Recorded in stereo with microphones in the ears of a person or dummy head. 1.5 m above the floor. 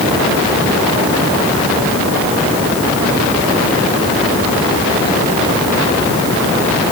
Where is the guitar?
No guitar in this recording.